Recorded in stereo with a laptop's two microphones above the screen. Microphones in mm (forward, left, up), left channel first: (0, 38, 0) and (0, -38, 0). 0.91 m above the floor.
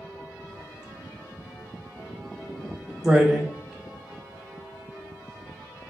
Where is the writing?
15° right (ahead or behind), 2.5 m.